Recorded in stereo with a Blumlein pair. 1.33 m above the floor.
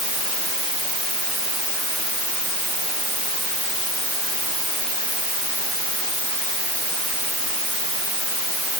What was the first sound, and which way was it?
Only background noise.